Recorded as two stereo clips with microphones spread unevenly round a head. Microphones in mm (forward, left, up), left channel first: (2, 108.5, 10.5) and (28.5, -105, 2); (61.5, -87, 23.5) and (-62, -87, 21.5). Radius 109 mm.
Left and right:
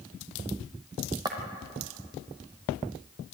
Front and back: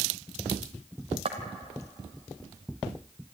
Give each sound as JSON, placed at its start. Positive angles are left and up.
{"t": 1.2, "sound": "footsteps", "azimuth_deg": -155, "distance_m": 2.5}